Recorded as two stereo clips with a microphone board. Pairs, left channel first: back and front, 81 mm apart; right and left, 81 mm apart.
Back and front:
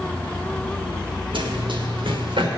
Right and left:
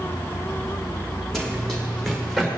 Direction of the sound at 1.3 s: 5° right.